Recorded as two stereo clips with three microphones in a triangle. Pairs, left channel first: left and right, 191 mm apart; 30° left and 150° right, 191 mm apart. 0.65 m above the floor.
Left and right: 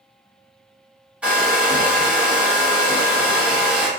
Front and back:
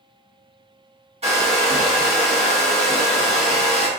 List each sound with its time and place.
1.2 s a hair dryer: 170° right, 1.0 m